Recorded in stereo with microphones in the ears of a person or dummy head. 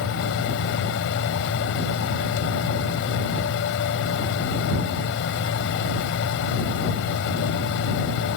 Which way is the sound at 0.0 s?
70° left (ahead or behind).